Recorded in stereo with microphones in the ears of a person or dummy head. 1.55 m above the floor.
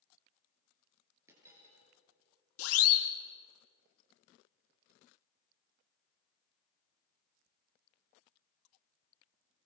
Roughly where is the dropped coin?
Centre.